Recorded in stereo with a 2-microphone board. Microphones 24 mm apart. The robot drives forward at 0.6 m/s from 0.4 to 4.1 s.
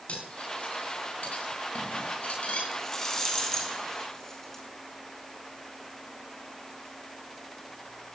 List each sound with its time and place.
0.1 s cutlery clinking: 60° left (ahead or behind), 7.5 m; by 2.6 s 70° left (ahead or behind), 6.5 m
2.7 s a rattle: 25° left (ahead or behind), 4 m; by 4.6 s 20° left (ahead or behind), 5 m